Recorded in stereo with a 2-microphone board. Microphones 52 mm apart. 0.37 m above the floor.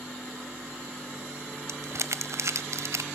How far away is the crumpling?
About 0.8 m.